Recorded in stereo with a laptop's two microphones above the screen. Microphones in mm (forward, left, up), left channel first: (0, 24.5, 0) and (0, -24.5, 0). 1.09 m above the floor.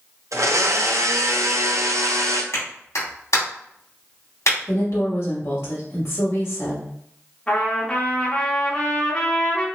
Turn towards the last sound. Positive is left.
turn(degrees=20)  # may be behind; listen again after turning